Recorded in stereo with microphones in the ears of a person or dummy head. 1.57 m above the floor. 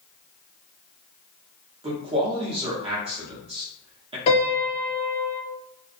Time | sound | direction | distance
1.8 | a man speaking | 30° right (ahead or behind) | 0.8 m
4.3 | a piano | 35° left (ahead or behind) | 0.7 m